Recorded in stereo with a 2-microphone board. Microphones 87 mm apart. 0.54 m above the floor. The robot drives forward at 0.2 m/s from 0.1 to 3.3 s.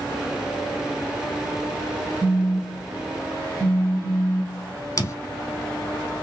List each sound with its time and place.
2.2 s a phone buzzing: 25° right (ahead or behind), 0.7 m
5.0 s footsteps: 35° left (ahead or behind), 0.9 m